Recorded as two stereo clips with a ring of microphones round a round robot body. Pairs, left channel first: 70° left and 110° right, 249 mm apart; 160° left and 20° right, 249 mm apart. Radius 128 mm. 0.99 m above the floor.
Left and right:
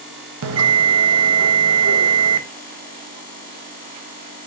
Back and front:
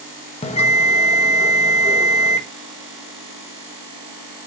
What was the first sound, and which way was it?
A bell, 140° right.